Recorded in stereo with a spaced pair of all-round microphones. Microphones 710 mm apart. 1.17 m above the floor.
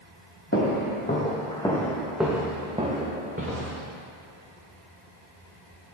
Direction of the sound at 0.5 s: 20° left (ahead or behind).